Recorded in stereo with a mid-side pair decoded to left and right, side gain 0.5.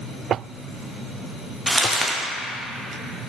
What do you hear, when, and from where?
1.7 s crumpling: straight ahead, 1.0 m